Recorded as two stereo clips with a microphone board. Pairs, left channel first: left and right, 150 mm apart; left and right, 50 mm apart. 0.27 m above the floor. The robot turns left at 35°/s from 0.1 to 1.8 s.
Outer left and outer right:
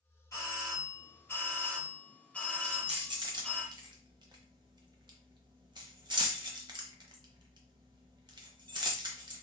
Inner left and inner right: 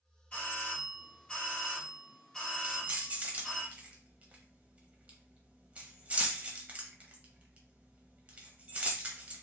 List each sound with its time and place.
0.3 s a doorbell: 25° left (ahead or behind), 1.5 m; by 3.6 s 10° left (ahead or behind), 1.5 m
2.6 s keys jangling: 30° right (ahead or behind), 0.7 m